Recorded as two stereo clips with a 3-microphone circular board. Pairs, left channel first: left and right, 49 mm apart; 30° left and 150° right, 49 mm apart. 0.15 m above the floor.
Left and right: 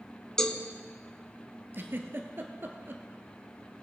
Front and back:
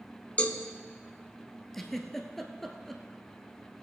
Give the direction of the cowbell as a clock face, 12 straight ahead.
11 o'clock.